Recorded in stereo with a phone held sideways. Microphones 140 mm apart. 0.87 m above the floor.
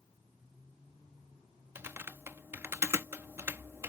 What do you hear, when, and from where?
1.8 s typing on a keyboard: 15° right (ahead or behind)